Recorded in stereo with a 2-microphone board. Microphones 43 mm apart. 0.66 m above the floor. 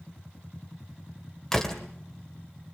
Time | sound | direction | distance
1.5 | a door slam | 15° left (ahead or behind) | 2 m